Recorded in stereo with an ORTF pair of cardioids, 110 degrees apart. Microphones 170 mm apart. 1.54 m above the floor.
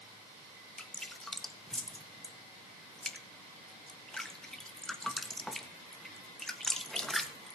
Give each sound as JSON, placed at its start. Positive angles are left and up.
{"t": 0.8, "sound": "dripping", "azimuth_deg": 5, "distance_m": 1.5}